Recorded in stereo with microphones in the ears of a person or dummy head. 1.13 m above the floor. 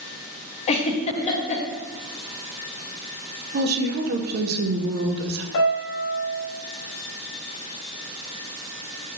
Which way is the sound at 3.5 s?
50° right (ahead or behind).